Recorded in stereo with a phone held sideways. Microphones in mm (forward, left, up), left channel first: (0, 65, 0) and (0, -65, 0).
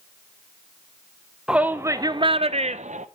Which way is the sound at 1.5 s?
5° right (ahead or behind).